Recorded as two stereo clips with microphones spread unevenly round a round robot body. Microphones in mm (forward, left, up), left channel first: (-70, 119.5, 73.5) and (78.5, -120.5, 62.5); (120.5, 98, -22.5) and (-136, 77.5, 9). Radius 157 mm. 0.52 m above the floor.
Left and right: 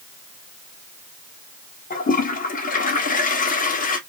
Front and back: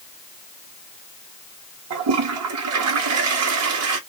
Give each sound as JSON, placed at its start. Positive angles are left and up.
{"t": 1.9, "sound": "a toilet flushing", "azimuth_deg": 180, "distance_m": 1.4}